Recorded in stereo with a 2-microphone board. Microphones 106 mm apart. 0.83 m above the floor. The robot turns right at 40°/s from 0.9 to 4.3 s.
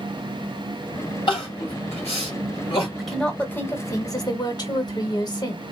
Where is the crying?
50° left (ahead or behind), 2 m; by 2.9 s 55° left (ahead or behind), 2 m.